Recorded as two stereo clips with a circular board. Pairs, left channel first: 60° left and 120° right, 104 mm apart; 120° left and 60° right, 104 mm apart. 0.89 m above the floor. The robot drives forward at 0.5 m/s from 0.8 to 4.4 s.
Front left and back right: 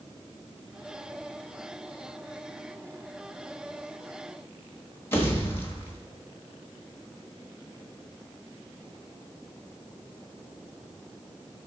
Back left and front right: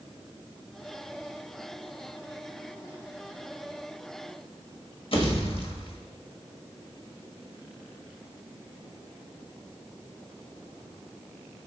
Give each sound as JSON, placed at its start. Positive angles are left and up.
{"t": 5.1, "sound": "a pop", "azimuth_deg": 125, "distance_m": 1.3}